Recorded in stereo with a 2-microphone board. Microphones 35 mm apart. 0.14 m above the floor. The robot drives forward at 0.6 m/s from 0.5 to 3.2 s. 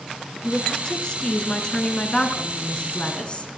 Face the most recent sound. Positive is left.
turn(degrees=30)  # may be behind; listen again after turning